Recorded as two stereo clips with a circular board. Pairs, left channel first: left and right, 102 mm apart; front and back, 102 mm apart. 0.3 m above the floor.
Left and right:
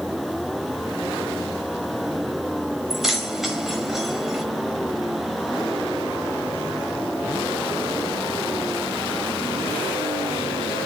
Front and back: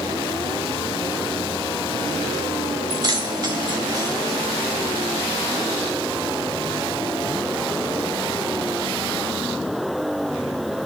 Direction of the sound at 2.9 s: 175° right.